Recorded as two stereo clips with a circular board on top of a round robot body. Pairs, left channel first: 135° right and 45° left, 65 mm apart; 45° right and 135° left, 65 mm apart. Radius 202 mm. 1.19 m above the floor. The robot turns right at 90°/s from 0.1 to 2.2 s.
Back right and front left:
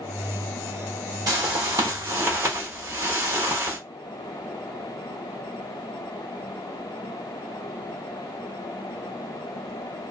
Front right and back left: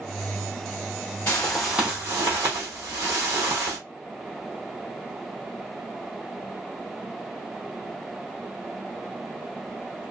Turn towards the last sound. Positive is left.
turn(degrees=105)